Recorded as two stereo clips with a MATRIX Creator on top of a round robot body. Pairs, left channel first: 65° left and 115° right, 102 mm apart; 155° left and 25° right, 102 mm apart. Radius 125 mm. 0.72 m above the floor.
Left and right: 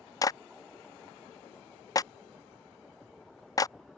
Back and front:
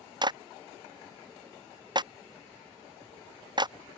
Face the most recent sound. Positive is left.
turn(degrees=15)